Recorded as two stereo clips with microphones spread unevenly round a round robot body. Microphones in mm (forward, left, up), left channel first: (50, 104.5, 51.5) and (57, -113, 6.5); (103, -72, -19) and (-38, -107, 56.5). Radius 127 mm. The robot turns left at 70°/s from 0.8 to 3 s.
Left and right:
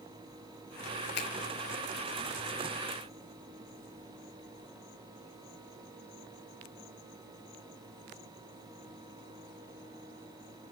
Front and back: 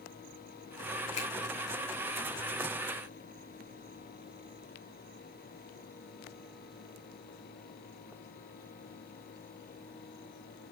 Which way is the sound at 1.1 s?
50° left.